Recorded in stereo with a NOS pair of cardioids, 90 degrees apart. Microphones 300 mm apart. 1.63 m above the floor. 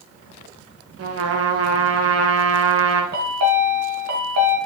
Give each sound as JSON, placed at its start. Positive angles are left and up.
{"t": 1.0, "sound": "a trumpet", "azimuth_deg": -50, "distance_m": 1.4}
{"t": 3.1, "sound": "a chime", "azimuth_deg": -60, "distance_m": 3.0}